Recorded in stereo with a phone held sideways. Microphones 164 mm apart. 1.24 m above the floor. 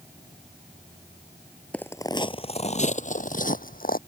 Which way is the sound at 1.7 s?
5° left (ahead or behind).